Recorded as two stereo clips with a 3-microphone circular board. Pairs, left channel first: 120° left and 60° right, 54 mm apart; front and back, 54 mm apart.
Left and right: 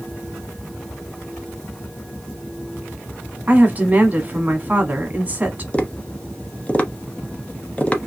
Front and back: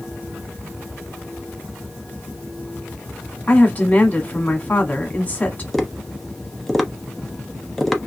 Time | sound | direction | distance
3.5 | a woman speaking | 25° right | 1.2 m
5.7 | tapping | 85° left | 0.7 m